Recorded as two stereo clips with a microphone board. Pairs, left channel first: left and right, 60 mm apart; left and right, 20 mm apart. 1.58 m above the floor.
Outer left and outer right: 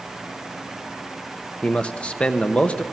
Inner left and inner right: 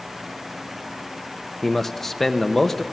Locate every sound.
1.6 s a man speaking: 20° left (ahead or behind), 1.0 m